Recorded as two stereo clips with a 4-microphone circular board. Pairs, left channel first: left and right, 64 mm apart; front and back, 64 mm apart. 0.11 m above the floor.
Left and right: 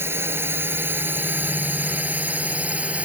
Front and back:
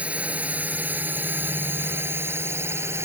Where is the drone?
120° right; by 3.1 s 150° right.